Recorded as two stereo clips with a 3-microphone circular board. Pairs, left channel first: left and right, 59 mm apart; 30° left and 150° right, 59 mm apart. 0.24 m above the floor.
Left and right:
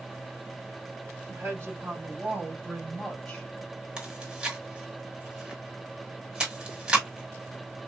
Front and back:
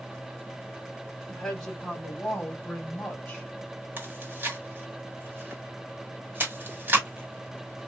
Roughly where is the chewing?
Behind right.